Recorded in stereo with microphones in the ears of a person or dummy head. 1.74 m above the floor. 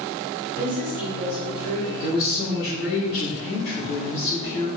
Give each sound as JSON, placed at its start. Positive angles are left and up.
{"t": 0.6, "sound": "a woman speaking", "side_deg": -45, "distance_m": 1.3}
{"t": 2.0, "sound": "a woman speaking", "side_deg": 45, "distance_m": 0.9}